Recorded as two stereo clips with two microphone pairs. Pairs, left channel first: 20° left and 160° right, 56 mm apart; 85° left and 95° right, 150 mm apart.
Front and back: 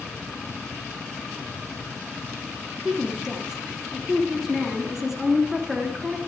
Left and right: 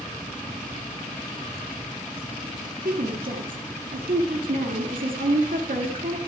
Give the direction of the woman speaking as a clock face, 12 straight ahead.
3 o'clock.